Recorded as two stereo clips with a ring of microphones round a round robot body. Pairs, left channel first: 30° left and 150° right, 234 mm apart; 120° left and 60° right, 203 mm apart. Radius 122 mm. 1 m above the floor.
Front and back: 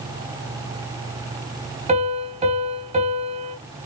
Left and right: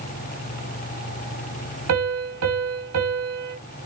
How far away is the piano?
About 3.5 m.